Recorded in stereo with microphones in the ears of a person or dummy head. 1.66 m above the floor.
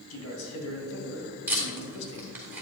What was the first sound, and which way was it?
A man speaking, 85° left.